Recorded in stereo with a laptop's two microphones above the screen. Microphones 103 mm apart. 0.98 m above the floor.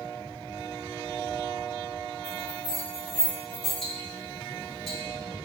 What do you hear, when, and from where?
2.2 s a bell: 45° right (ahead or behind), 1.7 m
3.8 s ticking: centre (ahead or behind), 1.3 m